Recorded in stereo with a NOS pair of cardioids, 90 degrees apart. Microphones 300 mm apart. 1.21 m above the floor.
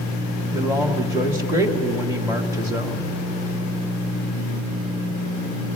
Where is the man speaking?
5° right, 1.7 m.